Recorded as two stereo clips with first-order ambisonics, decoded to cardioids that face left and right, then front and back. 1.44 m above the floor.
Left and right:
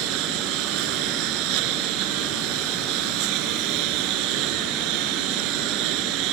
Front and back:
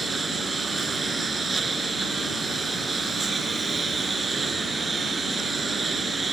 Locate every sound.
0.0 s a lawn mower: 105° right